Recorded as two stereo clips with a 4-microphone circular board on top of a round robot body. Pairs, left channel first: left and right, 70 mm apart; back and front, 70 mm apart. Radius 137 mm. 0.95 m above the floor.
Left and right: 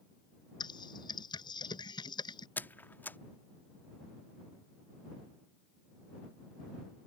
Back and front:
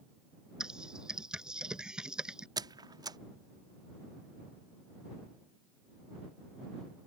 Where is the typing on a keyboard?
80° left.